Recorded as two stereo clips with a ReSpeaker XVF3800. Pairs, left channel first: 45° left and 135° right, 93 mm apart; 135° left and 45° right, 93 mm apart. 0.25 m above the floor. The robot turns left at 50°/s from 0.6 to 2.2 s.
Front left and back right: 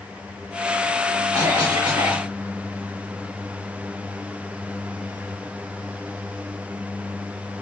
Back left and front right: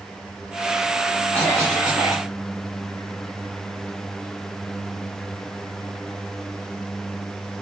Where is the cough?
90° right, 2.5 m; by 2.3 s 135° right, 2.5 m.